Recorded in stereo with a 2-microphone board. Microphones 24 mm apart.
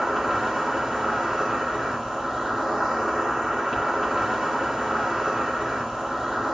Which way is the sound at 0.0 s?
10° right (ahead or behind).